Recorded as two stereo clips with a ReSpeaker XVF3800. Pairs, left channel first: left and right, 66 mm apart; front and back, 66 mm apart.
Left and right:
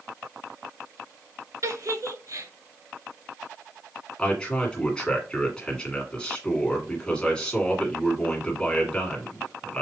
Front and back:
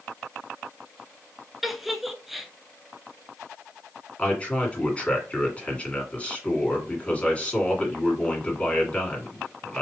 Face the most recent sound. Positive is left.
turn(degrees=35)